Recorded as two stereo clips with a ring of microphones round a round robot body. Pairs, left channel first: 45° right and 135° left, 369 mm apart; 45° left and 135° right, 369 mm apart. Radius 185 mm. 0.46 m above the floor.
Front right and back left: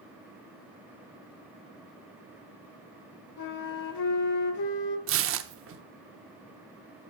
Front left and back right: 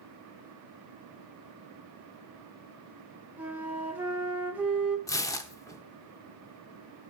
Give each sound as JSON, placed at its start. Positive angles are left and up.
{"t": 3.4, "sound": "a flute", "azimuth_deg": -50, "distance_m": 1.6}
{"t": 5.1, "sound": "tearing paper", "azimuth_deg": 120, "distance_m": 0.7}